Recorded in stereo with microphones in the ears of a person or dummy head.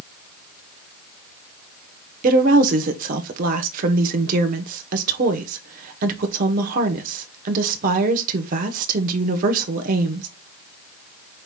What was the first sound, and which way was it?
A woman speaking, 45° right (ahead or behind).